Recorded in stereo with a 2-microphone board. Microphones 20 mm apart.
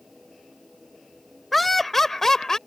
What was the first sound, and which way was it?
Laughter, centre (ahead or behind).